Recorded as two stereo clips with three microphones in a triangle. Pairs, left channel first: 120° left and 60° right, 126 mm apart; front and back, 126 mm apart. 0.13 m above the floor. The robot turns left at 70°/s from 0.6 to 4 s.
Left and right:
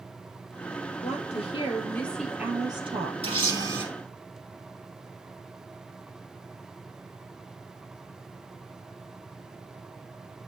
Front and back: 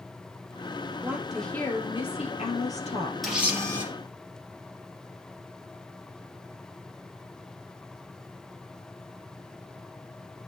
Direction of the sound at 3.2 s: 90° right.